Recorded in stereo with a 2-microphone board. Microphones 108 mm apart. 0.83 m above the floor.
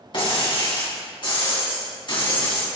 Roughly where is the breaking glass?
Left.